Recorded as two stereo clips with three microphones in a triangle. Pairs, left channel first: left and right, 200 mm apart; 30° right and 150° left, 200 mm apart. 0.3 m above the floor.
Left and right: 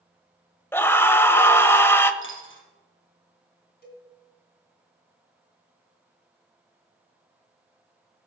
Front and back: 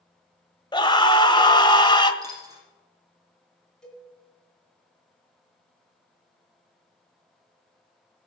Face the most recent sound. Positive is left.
turn(degrees=55)